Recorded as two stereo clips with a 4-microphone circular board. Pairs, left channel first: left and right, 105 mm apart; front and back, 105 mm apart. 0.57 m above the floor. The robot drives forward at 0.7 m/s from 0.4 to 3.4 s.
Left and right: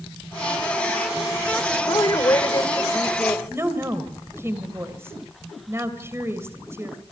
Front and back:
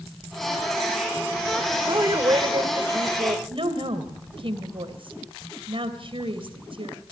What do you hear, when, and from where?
1.9 s a woman speaking: 130° left, 2.5 m; by 3.4 s 150° left, 3 m
3.5 s a woman speaking: 155° right, 3 m